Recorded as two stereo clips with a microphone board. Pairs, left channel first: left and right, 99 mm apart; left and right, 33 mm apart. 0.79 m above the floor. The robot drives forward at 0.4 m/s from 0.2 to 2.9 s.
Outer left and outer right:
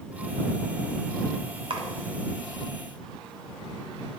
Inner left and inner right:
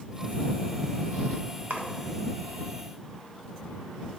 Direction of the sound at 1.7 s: 60° right (ahead or behind).